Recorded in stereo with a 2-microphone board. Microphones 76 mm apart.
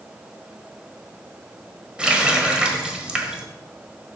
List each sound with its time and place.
2.0 s a running tap: 15° right (ahead or behind), 1.2 m